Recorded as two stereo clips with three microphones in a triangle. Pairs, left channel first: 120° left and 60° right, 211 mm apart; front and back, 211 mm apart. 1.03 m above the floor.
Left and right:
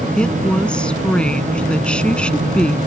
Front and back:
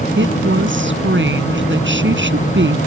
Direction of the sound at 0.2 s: 155° right.